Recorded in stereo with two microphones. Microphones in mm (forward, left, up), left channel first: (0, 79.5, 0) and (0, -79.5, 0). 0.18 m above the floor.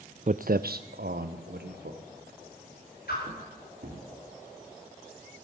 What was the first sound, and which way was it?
Footsteps, 50° right (ahead or behind).